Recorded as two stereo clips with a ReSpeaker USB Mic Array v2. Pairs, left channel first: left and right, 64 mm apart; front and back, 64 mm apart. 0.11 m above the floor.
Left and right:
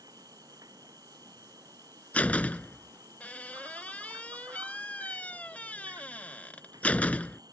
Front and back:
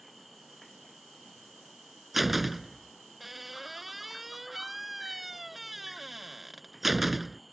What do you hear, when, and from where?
0.0 s an insect: 90° right
2.1 s a door slam: 100° left